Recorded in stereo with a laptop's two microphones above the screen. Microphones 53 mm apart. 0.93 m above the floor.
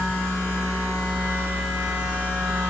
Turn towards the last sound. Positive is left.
turn(degrees=-40)  # may be behind; listen again after turning